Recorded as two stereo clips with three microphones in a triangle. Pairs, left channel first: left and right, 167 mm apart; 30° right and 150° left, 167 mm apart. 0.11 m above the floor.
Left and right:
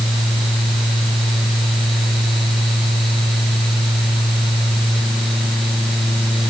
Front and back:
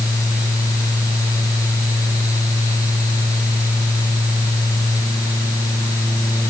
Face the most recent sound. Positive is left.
No sound to turn to.